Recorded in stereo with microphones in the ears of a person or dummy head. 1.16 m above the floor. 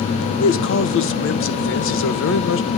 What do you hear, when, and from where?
0.4 s a man speaking: 60° left (ahead or behind), 1.3 m